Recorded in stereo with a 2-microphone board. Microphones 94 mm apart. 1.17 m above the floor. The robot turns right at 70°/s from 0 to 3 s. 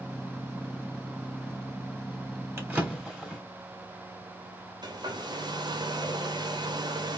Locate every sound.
2.6 s a drawer: 25° right (ahead or behind), 1.0 m; by 3.4 s 5° right (ahead or behind), 1.0 m
4.8 s a hair dryer: 50° right (ahead or behind), 0.7 m